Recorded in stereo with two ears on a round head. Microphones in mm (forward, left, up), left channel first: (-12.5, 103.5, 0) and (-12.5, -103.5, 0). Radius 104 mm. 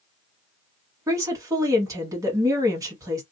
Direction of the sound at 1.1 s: 15° right (ahead or behind).